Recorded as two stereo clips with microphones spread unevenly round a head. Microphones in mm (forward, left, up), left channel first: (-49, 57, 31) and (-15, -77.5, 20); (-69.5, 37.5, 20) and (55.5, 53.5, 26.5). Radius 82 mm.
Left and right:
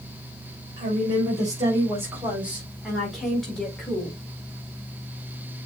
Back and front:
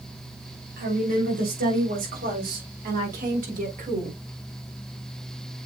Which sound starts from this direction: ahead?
A woman speaking, at 0.8 s.